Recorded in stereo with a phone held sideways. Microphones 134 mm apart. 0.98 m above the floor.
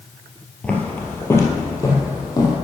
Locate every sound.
0.6 s footsteps: 10° left (ahead or behind), 1.2 m; by 2.6 s 30° left (ahead or behind), 2 m